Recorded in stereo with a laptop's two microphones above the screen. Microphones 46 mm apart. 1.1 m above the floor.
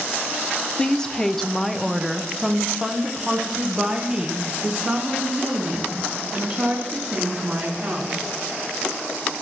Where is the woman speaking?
20° left (ahead or behind), 0.7 m; by 8.2 s 15° right (ahead or behind), 3.5 m.